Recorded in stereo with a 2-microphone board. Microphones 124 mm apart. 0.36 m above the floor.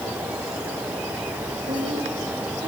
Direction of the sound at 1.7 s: 70° right (ahead or behind).